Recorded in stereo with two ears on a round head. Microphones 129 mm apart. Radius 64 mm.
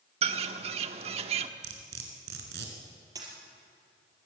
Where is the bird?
45° right (ahead or behind), 1.1 m.